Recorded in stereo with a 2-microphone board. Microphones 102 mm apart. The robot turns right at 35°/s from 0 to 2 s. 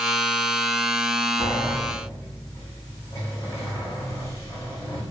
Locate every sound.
1.4 s a sliding door: 50° left (ahead or behind), 5.5 m; by 5.0 s 30° left (ahead or behind), 5.5 m